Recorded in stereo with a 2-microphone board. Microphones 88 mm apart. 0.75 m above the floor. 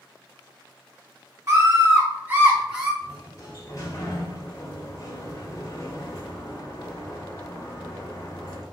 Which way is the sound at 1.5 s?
30° right (ahead or behind).